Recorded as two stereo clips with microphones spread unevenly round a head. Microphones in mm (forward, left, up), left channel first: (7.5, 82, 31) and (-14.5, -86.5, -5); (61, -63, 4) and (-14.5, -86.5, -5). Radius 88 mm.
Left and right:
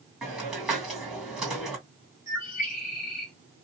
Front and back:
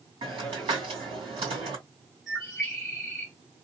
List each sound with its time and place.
0.2 s a hiss: 175° left, 2.5 m
2.3 s a bird: 105° left, 1.3 m